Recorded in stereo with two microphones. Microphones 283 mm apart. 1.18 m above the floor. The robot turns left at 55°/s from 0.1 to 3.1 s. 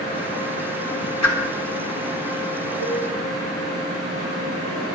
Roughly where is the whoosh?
Left.